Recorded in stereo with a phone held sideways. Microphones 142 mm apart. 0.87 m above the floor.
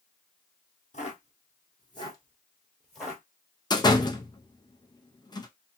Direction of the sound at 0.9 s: 50° left (ahead or behind).